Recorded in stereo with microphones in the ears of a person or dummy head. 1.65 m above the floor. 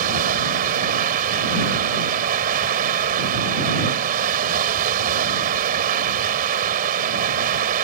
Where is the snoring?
I don't hear snoring.